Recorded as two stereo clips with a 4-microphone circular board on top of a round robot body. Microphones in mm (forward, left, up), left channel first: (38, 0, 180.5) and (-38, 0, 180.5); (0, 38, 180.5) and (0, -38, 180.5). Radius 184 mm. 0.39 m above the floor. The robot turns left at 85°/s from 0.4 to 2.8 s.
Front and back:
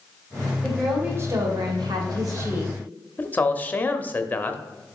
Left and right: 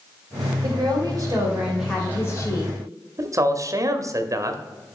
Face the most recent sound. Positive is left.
turn(degrees=-60)